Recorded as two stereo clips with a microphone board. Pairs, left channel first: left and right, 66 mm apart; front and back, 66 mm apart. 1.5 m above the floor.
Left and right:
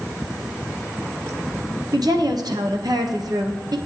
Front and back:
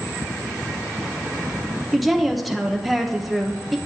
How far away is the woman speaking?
About 0.8 m.